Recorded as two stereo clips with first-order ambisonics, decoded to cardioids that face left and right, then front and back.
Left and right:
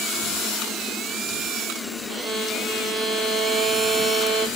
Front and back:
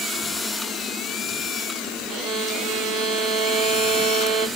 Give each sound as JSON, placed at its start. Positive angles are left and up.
{"t": 2.1, "sound": "a violin", "azimuth_deg": -150, "distance_m": 0.8}